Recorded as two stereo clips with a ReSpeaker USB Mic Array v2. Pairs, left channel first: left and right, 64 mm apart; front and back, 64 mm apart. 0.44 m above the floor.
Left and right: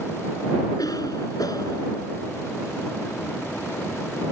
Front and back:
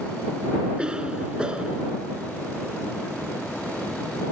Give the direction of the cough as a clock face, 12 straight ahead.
9 o'clock.